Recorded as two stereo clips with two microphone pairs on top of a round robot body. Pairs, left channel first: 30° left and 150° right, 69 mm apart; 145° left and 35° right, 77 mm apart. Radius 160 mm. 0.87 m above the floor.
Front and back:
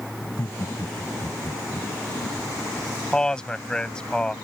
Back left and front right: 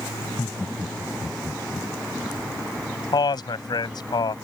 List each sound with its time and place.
0.2 s laughter: 85° left
3.1 s a man speaking: 110° left